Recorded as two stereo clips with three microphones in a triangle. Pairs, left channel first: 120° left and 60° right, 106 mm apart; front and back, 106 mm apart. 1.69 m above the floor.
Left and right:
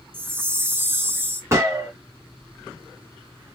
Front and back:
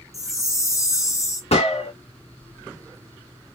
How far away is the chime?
About 0.6 m.